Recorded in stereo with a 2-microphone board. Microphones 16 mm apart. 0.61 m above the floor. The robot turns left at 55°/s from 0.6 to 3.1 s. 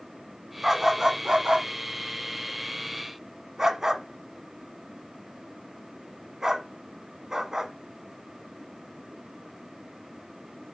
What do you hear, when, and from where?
0.6 s a dog barking: 10° right (ahead or behind), 1.2 m; by 7.7 s 30° right (ahead or behind), 1.2 m